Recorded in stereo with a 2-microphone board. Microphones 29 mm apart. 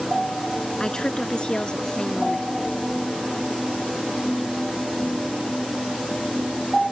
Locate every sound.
0.8 s a woman speaking: 25° left (ahead or behind); by 2.5 s 30° left (ahead or behind)